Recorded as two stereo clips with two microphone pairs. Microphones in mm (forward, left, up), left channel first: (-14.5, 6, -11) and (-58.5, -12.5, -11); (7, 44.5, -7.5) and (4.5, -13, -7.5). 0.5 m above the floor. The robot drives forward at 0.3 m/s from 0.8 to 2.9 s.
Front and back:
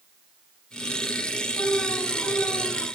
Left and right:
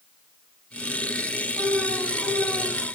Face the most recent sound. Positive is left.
turn(degrees=35)